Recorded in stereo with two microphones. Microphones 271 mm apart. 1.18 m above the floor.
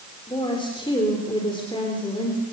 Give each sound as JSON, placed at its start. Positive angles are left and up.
{"t": 0.3, "sound": "a woman speaking", "side_deg": 20, "distance_m": 4.0}